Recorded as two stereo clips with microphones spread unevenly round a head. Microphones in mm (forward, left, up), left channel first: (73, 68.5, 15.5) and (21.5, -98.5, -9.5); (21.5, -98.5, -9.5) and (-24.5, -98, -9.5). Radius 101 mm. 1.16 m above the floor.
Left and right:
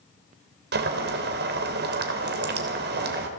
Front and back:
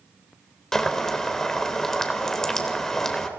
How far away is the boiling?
About 3.5 m.